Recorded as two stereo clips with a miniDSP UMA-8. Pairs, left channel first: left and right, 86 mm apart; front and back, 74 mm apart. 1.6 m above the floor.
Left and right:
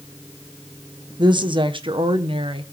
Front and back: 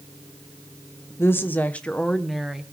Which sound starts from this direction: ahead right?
A woman speaking, at 1.2 s.